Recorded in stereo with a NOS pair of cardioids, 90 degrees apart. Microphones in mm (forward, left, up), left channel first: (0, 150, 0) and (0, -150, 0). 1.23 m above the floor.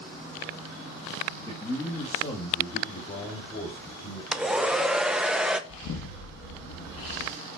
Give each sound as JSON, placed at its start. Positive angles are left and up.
{"t": 1.5, "sound": "a man speaking", "azimuth_deg": 10, "distance_m": 2.0}
{"t": 4.3, "sound": "a hair dryer", "azimuth_deg": -5, "distance_m": 0.7}
{"t": 5.7, "sound": "an explosion", "azimuth_deg": 60, "distance_m": 1.4}